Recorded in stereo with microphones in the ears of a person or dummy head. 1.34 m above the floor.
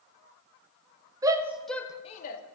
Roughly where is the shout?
Right.